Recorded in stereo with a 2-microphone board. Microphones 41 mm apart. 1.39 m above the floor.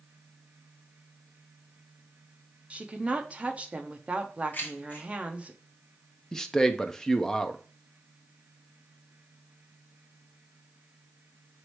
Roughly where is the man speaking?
Centre.